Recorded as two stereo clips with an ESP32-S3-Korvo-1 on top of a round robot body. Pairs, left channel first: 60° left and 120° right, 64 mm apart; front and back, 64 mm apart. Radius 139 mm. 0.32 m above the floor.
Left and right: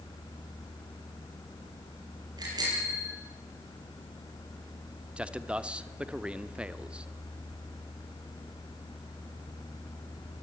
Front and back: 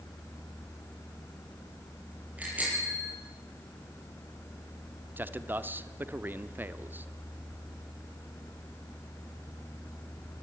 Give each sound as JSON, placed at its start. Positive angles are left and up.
{"t": 2.4, "sound": "a bicycle bell", "azimuth_deg": -115, "distance_m": 9.0}
{"t": 5.2, "sound": "a man speaking", "azimuth_deg": -175, "distance_m": 1.4}